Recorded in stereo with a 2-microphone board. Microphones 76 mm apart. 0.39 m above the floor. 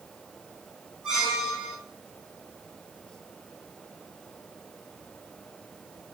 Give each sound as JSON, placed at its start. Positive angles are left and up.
{"t": 1.0, "sound": "a squeak", "side_deg": -5, "distance_m": 4.0}